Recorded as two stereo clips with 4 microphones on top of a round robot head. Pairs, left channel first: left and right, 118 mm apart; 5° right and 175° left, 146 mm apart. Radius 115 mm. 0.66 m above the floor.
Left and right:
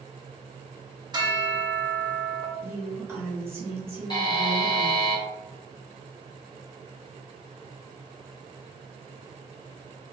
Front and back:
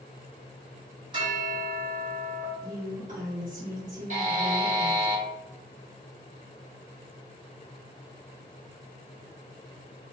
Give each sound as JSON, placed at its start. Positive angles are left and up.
{"t": 1.1, "sound": "a bell", "azimuth_deg": -135, "distance_m": 1.4}
{"t": 2.6, "sound": "a woman speaking", "azimuth_deg": -160, "distance_m": 1.8}
{"t": 4.1, "sound": "a buzzer", "azimuth_deg": 140, "distance_m": 1.7}